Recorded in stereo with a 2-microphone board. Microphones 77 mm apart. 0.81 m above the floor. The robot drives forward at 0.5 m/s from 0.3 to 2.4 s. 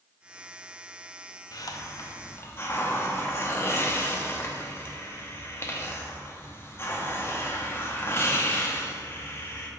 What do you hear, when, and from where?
1.5 s a hiss: 55° left (ahead or behind), 0.5 m; by 9.7 s 30° left (ahead or behind), 0.8 m